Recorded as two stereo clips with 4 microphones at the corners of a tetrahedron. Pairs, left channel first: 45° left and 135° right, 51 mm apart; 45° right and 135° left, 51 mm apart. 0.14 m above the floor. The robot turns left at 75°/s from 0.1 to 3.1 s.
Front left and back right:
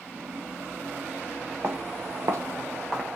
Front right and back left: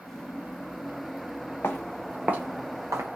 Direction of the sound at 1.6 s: 95° right.